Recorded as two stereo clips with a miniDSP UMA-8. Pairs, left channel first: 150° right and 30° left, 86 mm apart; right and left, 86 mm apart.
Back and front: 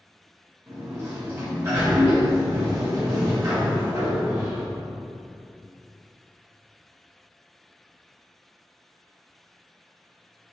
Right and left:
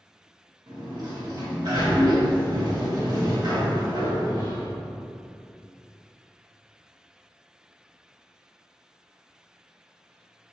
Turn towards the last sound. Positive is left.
turn(degrees=75)